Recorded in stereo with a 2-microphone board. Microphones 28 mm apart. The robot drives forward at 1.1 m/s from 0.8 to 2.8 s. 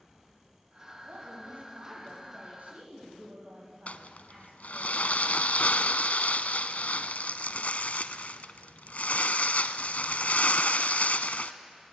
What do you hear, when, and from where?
1.0 s a woman speaking: 70° right (ahead or behind), 8.5 m; by 4.9 s 60° right (ahead or behind), 9.5 m
3.9 s crumpling: 65° left (ahead or behind), 0.7 m